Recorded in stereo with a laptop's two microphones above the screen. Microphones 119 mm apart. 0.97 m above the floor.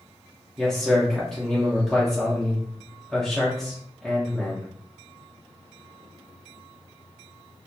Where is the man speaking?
5° left (ahead or behind), 0.5 m.